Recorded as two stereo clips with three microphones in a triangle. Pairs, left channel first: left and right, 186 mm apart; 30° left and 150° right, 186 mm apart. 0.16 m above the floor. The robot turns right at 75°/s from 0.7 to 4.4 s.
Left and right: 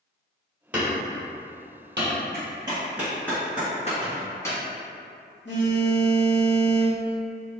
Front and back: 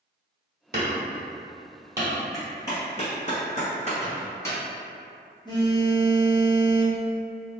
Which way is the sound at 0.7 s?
175° right.